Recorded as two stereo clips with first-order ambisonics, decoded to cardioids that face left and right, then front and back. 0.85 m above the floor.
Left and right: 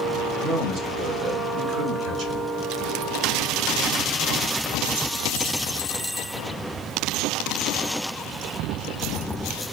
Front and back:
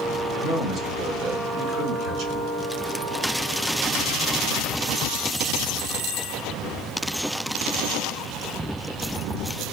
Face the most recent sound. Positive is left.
turn(degrees=-140)